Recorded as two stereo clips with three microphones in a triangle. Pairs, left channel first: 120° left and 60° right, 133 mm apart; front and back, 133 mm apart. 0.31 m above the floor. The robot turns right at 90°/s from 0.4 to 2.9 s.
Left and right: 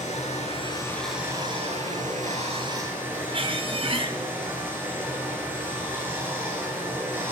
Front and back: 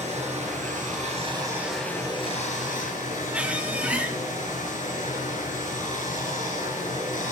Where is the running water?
150° left, 4 m; by 7.3 s 15° left, 4 m.